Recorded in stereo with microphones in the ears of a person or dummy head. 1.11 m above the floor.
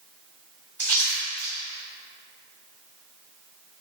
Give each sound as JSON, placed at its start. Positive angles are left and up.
{"t": 0.8, "sound": "a splash", "side_deg": 15, "distance_m": 1.6}